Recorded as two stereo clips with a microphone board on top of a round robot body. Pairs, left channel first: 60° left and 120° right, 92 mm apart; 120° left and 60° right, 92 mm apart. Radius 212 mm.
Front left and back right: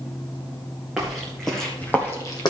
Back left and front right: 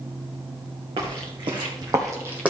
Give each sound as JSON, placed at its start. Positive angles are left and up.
{"t": 1.0, "sound": "footsteps", "azimuth_deg": -35, "distance_m": 3.0}